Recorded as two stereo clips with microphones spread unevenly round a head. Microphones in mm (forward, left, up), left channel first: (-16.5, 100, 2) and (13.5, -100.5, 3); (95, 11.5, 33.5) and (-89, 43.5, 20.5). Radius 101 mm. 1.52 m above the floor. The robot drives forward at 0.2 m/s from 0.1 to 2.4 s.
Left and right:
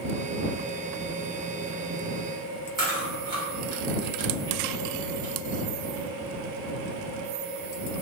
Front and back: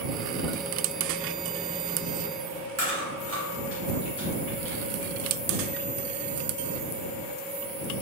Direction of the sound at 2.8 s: 155° right.